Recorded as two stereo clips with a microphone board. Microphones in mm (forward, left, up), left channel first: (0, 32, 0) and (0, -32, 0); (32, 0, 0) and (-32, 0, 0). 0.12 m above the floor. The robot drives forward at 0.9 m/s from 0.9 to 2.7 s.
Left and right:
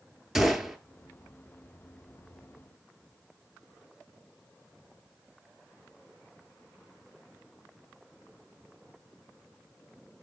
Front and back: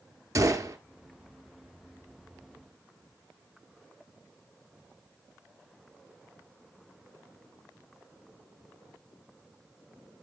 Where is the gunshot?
170° right, 0.8 m.